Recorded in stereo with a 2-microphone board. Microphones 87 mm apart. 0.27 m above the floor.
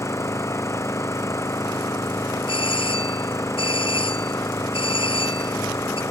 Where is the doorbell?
75° left (ahead or behind).